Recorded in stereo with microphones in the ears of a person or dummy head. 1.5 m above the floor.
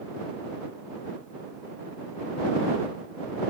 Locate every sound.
Only background noise.